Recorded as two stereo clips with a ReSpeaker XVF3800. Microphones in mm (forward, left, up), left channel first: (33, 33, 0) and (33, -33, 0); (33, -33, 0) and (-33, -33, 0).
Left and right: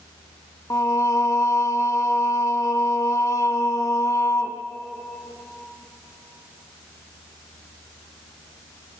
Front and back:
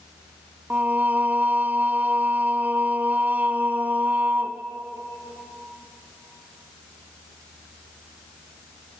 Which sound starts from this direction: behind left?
Singing, at 0.7 s.